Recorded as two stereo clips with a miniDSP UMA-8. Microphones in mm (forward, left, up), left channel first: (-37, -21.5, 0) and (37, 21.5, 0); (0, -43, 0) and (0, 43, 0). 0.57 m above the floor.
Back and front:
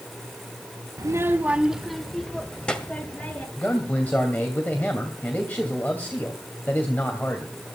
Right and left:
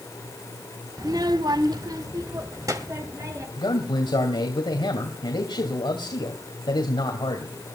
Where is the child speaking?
65° left, 0.8 m; by 3.5 s 140° left, 2.5 m.